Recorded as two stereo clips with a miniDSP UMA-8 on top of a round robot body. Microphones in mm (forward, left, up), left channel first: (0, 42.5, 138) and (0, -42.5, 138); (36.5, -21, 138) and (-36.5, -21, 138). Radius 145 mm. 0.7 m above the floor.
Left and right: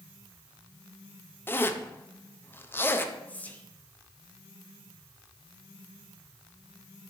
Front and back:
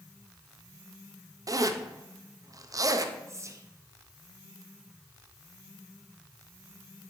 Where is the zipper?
150° left, 0.6 m.